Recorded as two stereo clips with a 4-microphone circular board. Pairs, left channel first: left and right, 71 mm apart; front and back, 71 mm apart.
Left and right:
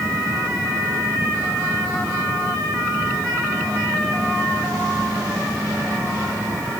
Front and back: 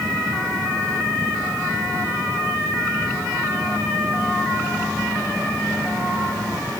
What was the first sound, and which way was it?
Only background noise.